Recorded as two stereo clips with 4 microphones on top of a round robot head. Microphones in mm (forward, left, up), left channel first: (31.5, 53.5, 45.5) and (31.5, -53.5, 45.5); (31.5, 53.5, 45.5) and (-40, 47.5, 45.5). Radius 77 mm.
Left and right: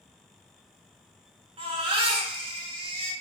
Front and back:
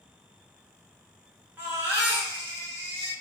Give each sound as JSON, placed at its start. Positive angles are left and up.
{"t": 1.6, "sound": "a baby crying", "azimuth_deg": -115, "distance_m": 0.9}